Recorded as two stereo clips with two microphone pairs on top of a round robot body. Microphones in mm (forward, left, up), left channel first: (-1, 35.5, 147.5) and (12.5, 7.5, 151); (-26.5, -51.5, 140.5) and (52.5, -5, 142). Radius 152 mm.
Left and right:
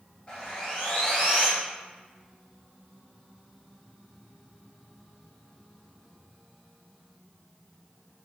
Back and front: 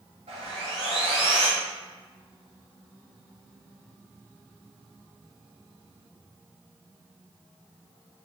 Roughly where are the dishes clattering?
I don't hear dishes clattering.